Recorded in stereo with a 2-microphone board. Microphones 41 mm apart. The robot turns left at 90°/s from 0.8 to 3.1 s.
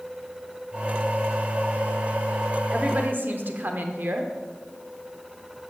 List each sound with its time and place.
2.7 s a woman speaking: 20° right, 0.9 m; by 4.3 s 55° right, 0.9 m